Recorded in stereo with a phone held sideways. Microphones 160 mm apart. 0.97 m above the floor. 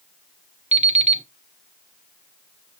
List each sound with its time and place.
0.7 s an alarm clock: 40° right (ahead or behind), 0.9 m